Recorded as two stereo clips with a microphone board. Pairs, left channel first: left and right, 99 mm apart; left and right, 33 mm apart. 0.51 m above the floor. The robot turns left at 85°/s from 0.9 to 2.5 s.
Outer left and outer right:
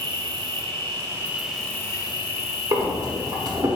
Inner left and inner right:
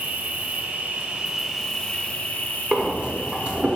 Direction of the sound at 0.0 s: 125° right.